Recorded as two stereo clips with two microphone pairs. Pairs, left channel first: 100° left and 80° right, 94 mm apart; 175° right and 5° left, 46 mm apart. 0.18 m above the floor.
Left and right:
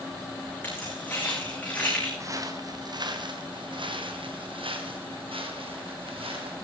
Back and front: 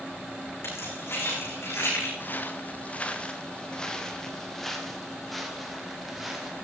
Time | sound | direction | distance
0.6 | keys jangling | 170° left | 9.5 m
2.2 | footsteps | 135° right | 2 m